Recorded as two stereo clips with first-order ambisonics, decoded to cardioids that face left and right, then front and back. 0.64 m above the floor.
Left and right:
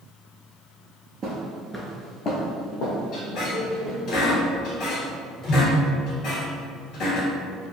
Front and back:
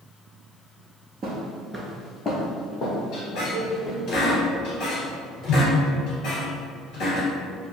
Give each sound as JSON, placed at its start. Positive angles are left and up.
{"t": 1.2, "sound": "footsteps", "azimuth_deg": -135, "distance_m": 0.7}
{"t": 3.1, "sound": "a squeak", "azimuth_deg": 50, "distance_m": 1.4}